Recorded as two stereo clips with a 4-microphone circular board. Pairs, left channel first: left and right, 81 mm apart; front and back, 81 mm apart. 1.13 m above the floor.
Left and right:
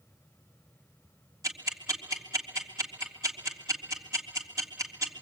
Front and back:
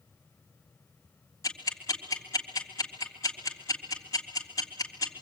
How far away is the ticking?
About 3 m.